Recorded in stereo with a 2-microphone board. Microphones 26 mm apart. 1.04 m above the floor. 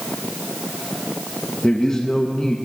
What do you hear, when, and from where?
1.6 s a man speaking: 35° left (ahead or behind), 0.7 m